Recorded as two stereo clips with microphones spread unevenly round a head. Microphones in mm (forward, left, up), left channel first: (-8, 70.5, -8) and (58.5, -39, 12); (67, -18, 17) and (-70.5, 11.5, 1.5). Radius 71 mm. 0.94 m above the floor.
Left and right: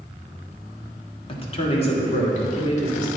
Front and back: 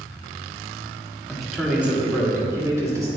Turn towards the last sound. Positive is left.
turn(degrees=100)